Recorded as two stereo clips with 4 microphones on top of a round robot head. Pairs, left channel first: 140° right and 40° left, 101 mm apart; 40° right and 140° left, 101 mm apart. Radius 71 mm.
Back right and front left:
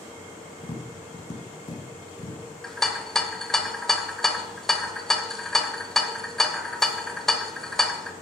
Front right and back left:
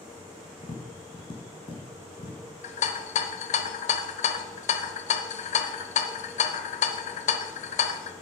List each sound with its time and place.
0.6 s tapping: 85° right, 1.7 m
2.6 s a rattle: 55° right, 0.8 m